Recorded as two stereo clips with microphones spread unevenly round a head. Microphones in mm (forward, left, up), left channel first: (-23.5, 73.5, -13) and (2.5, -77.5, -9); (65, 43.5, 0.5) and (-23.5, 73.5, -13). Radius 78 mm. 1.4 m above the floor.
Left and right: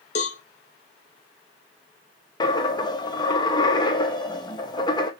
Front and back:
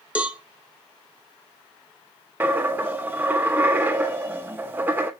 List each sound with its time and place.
0.1 s a cowbell: 85° left, 0.7 m
2.4 s a dropped coin: 105° left, 0.7 m